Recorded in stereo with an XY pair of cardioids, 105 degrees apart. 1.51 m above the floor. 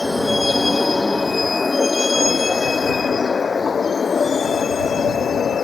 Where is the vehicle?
15° left; by 5.7 s 45° left.